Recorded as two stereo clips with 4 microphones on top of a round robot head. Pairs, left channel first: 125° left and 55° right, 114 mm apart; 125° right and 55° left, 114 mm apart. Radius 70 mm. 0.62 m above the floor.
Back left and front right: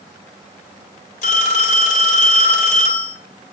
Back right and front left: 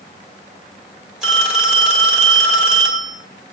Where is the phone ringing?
140° left, 1.9 m.